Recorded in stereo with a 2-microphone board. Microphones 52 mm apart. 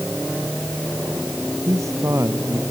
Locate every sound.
1.6 s a man speaking: 80° right